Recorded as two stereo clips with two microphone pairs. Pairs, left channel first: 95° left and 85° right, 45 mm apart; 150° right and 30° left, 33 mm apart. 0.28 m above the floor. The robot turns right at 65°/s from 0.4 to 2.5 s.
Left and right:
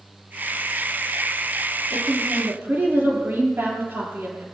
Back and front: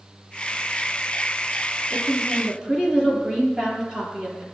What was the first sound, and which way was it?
A woman speaking, 85° right.